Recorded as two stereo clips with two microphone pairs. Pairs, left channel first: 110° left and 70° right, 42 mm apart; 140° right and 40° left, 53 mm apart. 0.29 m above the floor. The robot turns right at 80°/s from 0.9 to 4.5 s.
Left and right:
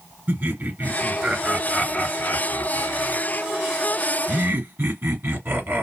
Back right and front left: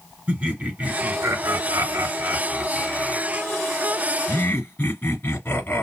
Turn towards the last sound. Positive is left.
turn(degrees=-100)